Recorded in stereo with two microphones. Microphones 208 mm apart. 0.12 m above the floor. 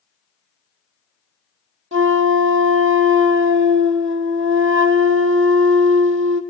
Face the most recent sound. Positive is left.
turn(degrees=-80)